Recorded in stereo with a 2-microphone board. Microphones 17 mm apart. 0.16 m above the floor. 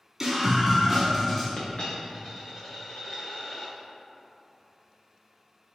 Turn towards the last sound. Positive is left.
turn(degrees=85)